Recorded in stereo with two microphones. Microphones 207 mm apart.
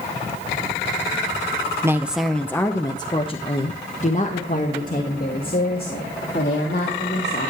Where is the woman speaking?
15° right (ahead or behind), 0.8 m; by 7.5 s 50° left (ahead or behind), 3.5 m.